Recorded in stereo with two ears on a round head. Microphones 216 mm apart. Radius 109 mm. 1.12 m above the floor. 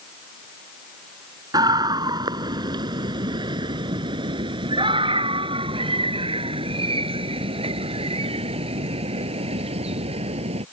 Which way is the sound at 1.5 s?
15° right (ahead or behind).